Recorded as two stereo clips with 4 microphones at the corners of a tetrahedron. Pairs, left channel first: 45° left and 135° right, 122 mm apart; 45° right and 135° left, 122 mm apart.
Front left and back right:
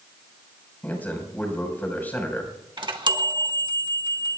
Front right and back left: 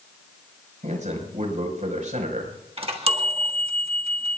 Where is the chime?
175° left, 1.5 m.